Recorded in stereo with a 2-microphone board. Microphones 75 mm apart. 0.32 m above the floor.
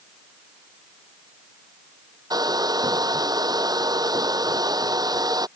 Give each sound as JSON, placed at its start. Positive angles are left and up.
{"t": 2.3, "sound": "a hair dryer", "side_deg": -60}